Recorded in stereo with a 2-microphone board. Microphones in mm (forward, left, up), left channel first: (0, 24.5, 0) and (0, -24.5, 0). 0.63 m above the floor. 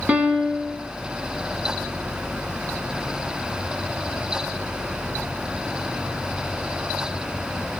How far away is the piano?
About 2 m.